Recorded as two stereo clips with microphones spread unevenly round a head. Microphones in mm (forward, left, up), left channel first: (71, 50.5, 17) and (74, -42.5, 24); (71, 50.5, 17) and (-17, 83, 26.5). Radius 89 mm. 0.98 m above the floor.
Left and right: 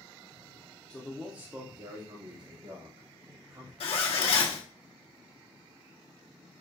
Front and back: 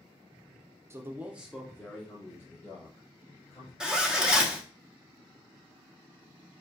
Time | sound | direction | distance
0.9 | a man speaking | 140° left | 0.7 m
3.8 | a zipper | 80° left | 1.0 m